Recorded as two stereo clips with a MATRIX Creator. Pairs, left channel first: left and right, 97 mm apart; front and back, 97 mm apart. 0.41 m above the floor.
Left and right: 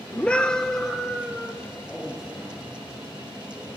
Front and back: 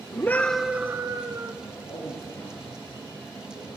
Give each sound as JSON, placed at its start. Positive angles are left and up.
{"t": 0.1, "sound": "a scream", "azimuth_deg": 25, "distance_m": 0.9}
{"t": 1.6, "sound": "a man speaking", "azimuth_deg": -5, "distance_m": 9.5}